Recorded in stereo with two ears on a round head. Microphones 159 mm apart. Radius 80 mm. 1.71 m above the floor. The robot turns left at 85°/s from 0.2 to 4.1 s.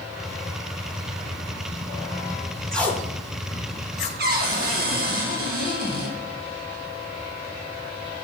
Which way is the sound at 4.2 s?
55° right (ahead or behind).